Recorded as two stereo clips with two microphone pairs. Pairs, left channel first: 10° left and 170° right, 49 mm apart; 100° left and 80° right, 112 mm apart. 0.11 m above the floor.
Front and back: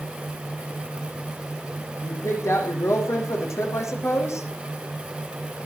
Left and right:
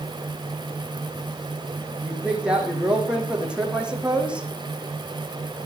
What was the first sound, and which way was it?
A woman speaking, straight ahead.